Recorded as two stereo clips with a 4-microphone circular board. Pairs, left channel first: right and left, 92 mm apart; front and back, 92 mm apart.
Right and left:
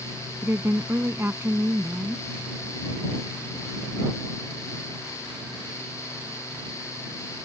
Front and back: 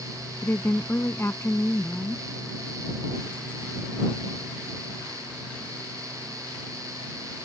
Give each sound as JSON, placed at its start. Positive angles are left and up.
{"t": 0.4, "sound": "a woman speaking", "azimuth_deg": 45}